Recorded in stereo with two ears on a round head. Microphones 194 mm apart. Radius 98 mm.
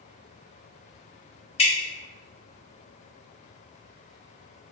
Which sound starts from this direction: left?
Dripping, at 1.6 s.